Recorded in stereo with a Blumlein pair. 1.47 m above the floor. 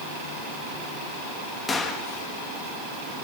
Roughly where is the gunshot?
Ahead.